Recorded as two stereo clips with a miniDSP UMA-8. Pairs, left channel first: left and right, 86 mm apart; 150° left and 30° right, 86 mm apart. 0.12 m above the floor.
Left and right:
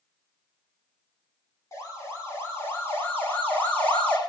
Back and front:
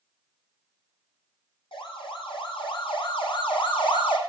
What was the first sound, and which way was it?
A siren, 145° left.